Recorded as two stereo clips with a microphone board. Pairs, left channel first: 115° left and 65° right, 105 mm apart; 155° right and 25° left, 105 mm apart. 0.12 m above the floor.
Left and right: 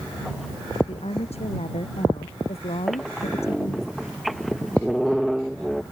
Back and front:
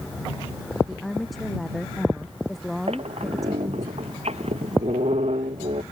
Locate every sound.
0.9 s a woman speaking: 115° left
2.9 s a squeak: 20° left